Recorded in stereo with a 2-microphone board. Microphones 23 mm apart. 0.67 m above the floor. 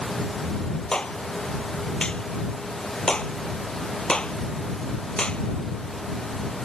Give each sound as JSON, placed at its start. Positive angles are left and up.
{"t": 0.9, "sound": "a clap", "side_deg": 40}